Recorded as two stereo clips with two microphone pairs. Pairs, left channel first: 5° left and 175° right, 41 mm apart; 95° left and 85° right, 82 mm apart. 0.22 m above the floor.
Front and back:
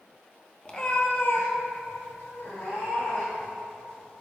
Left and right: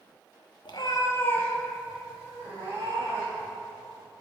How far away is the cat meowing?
About 0.9 m.